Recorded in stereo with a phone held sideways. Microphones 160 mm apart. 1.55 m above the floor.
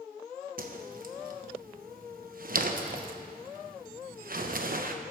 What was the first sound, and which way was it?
A whoosh, 65° right (ahead or behind).